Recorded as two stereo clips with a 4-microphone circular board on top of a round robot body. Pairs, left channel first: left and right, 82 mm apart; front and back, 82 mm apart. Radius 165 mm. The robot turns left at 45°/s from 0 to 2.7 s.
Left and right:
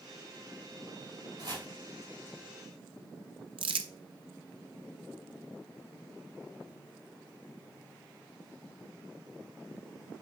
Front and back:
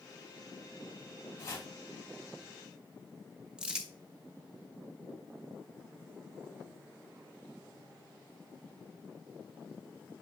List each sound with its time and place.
1.4 s chopping: 55° right, 3 m; by 1.7 s 70° right, 3 m
3.6 s crumpling: 100° right, 0.7 m